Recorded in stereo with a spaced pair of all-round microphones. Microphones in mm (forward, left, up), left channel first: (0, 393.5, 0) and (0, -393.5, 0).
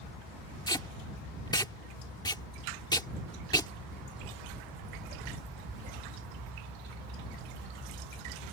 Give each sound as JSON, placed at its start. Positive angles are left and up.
{"t": 0.7, "sound": "tape being pulled", "side_deg": 5}